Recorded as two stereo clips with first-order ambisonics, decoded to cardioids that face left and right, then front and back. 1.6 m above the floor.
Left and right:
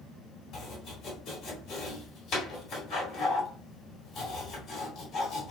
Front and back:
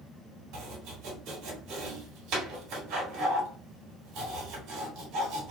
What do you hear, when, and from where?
0.5 s chopping: 145° left, 2.5 m